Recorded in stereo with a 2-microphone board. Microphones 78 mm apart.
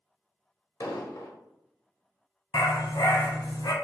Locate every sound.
0.8 s an explosion: 55° left (ahead or behind), 0.8 m
2.5 s a dog barking: 75° left (ahead or behind), 0.8 m